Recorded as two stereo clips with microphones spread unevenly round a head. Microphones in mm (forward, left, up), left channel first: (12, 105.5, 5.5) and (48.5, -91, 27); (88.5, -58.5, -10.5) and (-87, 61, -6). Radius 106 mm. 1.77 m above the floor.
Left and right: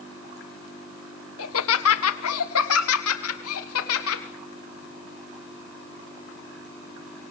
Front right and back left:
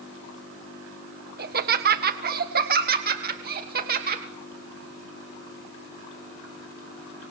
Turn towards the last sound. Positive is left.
turn(degrees=100)